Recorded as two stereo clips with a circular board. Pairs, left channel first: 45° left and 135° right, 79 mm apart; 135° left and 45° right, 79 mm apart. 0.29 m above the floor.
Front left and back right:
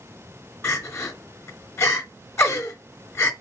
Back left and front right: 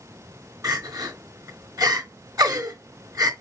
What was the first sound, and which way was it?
Crying, 10° right.